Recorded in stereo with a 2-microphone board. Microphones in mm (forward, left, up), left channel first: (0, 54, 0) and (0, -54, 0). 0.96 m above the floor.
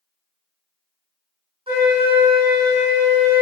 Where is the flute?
60° right (ahead or behind), 1.5 m.